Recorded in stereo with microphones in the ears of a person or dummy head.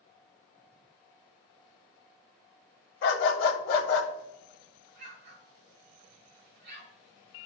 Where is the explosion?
50° right (ahead or behind), 3.5 m.